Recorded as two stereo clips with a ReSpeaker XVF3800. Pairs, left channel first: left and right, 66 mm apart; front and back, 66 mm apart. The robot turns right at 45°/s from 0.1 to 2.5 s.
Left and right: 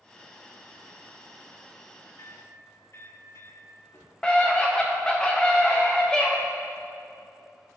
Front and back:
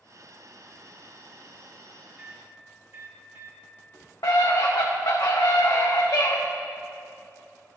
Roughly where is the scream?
Ahead.